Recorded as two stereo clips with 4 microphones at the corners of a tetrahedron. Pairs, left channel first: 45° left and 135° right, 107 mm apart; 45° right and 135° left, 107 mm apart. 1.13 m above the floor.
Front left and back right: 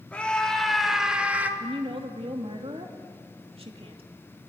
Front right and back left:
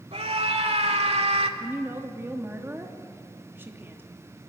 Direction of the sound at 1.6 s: 155° right.